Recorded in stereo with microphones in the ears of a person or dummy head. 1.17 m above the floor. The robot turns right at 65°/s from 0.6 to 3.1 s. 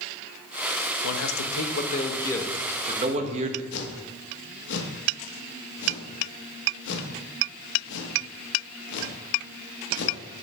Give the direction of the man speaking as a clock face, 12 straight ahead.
9 o'clock.